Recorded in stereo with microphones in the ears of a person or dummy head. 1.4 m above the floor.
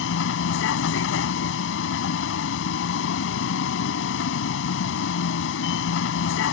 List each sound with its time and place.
0.0 s a vehicle: 80° left